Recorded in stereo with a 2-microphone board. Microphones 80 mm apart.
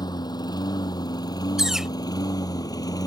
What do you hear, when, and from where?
0.0 s a lawn mower: 60° left (ahead or behind); by 3.1 s 50° left (ahead or behind)
1.6 s a bird: 5° right (ahead or behind)